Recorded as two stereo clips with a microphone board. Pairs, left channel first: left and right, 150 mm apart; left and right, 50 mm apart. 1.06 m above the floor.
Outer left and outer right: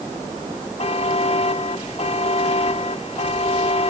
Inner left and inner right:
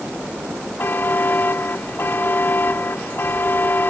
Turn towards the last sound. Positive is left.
turn(degrees=45)  # may be behind; listen again after turning